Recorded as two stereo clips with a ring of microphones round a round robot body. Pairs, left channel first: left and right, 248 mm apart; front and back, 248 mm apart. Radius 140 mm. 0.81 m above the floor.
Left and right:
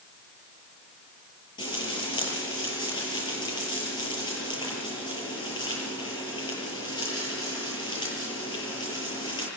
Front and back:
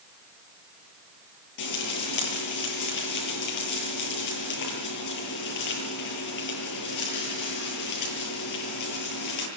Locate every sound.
1.6 s frying: 15° left, 9.5 m